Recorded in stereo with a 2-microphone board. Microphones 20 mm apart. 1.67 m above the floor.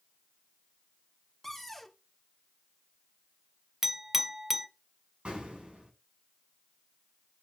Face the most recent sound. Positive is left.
turn(degrees=-60)  # may be behind; listen again after turning